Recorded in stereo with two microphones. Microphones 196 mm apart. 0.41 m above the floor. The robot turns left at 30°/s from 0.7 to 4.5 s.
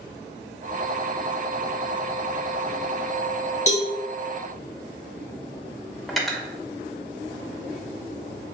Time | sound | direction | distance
3.7 | a cowbell | 35° left (ahead or behind) | 0.6 m
6.1 | cutlery clinking | centre (ahead or behind) | 0.6 m